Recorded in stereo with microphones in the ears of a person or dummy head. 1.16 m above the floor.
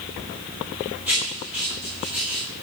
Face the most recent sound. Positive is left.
turn(degrees=-10)  # may be behind; listen again after turning